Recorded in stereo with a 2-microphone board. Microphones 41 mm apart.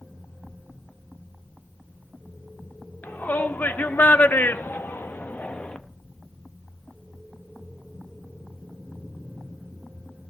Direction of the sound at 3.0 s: 45° left (ahead or behind).